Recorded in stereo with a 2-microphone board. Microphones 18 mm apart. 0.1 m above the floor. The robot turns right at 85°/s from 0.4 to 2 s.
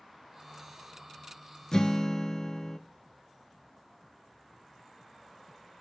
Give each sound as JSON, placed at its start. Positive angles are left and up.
{"t": 1.7, "sound": "a guitar", "side_deg": 40, "distance_m": 0.7}